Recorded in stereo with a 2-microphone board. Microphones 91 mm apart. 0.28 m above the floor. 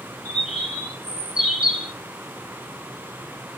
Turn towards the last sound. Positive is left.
turn(degrees=-5)  # may be behind; listen again after turning